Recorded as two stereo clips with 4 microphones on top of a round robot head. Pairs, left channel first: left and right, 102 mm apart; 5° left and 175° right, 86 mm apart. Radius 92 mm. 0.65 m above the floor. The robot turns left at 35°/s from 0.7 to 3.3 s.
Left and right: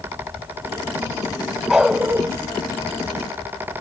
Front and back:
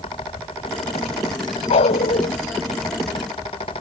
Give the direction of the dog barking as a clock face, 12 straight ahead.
12 o'clock.